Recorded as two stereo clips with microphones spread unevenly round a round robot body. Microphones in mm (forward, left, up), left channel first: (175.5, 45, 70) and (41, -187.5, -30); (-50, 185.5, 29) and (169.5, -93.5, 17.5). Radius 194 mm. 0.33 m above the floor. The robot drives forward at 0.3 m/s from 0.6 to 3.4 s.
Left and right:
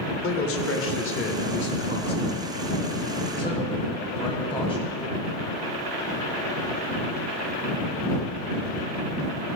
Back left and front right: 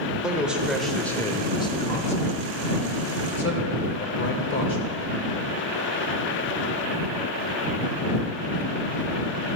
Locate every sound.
0.2 s a man speaking: 30° left, 0.9 m; by 5.0 s 155° left, 1.0 m